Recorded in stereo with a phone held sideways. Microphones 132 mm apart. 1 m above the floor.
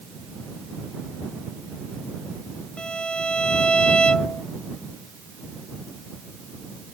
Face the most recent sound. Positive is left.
turn(degrees=10)  # may be behind; listen again after turning